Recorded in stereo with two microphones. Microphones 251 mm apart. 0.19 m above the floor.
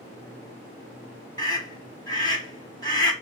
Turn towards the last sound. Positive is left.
turn(degrees=15)  # may be behind; listen again after turning